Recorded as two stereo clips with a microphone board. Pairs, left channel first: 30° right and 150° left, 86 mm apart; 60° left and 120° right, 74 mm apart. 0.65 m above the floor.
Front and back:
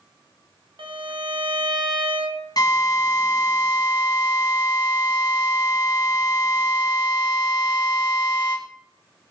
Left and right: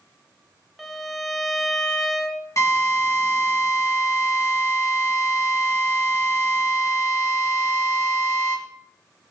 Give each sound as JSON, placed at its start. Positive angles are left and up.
{"t": 0.8, "sound": "a violin", "azimuth_deg": 150, "distance_m": 2.5}
{"t": 2.6, "sound": "a drill", "azimuth_deg": 10, "distance_m": 4.5}